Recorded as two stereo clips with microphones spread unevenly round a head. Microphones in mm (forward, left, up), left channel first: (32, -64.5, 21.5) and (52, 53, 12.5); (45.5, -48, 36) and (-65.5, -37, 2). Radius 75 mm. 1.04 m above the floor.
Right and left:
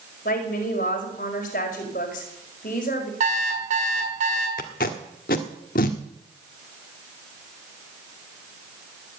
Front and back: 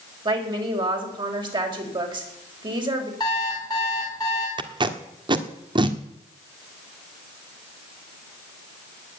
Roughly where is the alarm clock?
Ahead left.